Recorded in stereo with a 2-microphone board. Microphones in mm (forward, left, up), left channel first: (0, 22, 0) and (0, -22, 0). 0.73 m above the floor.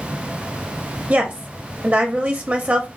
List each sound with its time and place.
1.1 s a woman speaking: 35° right (ahead or behind), 0.8 m